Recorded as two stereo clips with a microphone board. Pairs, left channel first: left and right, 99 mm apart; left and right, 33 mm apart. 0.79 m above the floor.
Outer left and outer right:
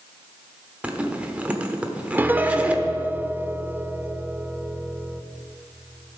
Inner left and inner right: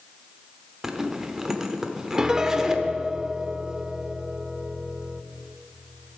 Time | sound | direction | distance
0.8 | a zipper | 15° right (ahead or behind) | 1.1 m
2.2 | a piano | 20° right (ahead or behind) | 0.5 m